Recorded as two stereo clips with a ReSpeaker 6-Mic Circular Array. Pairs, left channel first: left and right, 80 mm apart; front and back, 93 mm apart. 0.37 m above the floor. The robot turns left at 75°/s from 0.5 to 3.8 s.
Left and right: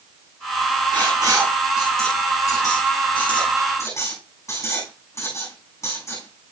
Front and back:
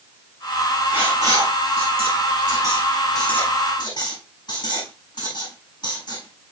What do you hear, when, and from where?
0.9 s writing: 110° right, 5.5 m; by 6.5 s 35° left, 5.5 m